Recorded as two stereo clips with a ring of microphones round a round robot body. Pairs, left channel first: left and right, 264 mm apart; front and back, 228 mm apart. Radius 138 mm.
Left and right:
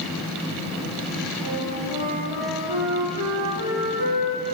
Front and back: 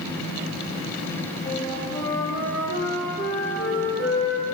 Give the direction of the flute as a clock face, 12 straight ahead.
2 o'clock.